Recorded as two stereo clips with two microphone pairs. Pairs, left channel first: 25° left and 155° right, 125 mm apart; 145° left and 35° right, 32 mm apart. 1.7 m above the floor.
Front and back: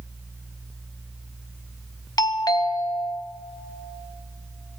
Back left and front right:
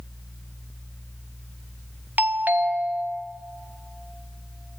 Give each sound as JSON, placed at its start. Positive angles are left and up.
{"t": 2.2, "sound": "a doorbell", "azimuth_deg": -30, "distance_m": 0.7}